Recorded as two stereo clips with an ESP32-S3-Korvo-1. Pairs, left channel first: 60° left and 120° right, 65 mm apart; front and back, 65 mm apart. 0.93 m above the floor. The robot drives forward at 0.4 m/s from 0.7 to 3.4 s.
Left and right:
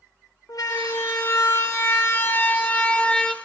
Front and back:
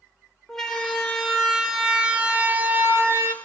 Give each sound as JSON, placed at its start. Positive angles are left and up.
{"t": 0.5, "sound": "a siren", "azimuth_deg": 85, "distance_m": 2.5}